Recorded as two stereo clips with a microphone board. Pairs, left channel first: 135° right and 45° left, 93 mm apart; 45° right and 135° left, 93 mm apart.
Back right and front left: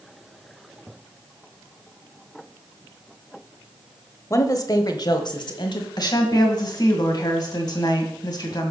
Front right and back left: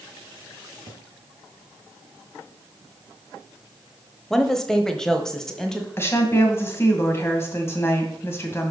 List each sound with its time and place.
4.3 s a woman speaking: 125° right, 1.0 m
6.0 s a woman speaking: 100° right, 2 m